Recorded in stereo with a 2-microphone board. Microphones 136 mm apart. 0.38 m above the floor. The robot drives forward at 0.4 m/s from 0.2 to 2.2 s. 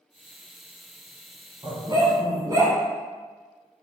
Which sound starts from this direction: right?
A dog barking, at 1.6 s.